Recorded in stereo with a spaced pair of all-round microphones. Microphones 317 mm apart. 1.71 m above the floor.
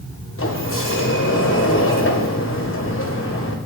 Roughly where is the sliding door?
Left.